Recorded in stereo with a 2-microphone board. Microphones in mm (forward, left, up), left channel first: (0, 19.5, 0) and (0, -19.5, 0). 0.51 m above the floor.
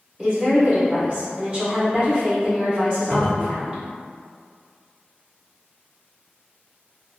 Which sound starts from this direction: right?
A woman speaking, at 0.2 s.